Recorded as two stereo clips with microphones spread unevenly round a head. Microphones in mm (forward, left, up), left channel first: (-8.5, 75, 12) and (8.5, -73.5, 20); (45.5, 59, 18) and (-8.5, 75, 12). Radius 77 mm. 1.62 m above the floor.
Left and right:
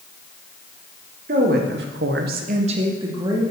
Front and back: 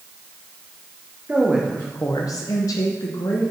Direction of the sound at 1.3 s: 120° right.